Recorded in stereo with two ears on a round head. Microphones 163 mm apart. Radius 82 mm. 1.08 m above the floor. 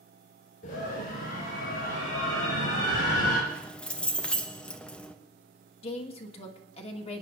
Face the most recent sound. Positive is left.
turn(degrees=35)  # may be behind; listen again after turning